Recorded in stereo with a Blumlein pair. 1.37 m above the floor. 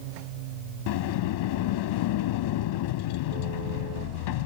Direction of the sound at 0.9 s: 50° left.